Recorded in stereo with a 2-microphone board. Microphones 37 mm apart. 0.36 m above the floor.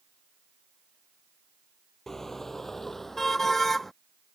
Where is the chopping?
I don't hear chopping.